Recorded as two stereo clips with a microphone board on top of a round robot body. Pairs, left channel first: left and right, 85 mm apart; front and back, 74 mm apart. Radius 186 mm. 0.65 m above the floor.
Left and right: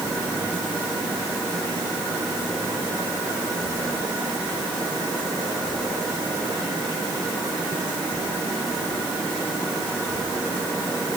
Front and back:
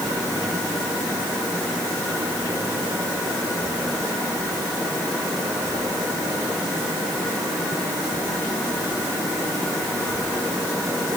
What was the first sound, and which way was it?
Only background noise.